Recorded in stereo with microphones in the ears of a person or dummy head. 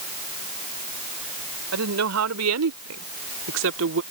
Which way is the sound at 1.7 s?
85° right.